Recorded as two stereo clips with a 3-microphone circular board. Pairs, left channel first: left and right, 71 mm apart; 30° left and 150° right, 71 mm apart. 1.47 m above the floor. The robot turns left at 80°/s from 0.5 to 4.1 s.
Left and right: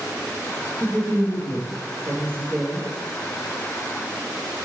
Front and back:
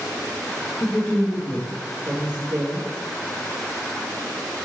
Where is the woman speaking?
30° right, 1.2 m; by 2.9 s 160° left, 1.2 m.